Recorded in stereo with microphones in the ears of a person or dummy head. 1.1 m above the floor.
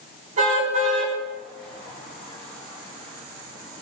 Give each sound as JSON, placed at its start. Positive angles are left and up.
{"t": 0.4, "sound": "a car horn", "side_deg": -40, "distance_m": 5.0}